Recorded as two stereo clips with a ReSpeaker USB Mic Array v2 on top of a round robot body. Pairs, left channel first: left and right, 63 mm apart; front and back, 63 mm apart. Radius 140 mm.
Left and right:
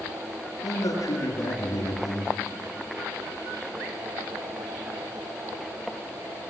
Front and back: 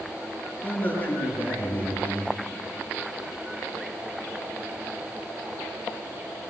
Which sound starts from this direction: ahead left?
A man speaking, at 0.6 s.